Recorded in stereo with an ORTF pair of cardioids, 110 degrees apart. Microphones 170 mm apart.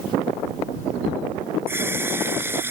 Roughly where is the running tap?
Ahead.